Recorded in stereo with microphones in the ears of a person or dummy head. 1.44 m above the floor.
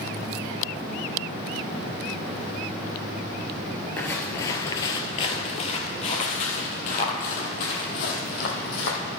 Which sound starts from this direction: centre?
Footsteps, at 4.0 s.